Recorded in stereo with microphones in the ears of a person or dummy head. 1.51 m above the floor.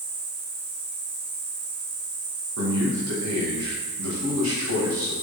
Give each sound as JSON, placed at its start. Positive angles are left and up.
{"t": 0.0, "sound": "an insect", "side_deg": -55, "distance_m": 3.0}
{"t": 2.6, "sound": "a man speaking", "side_deg": -85, "distance_m": 2.0}